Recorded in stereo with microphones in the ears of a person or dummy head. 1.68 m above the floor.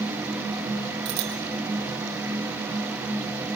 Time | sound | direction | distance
1.1 | a bicycle bell | 60° right (ahead or behind) | 7.5 m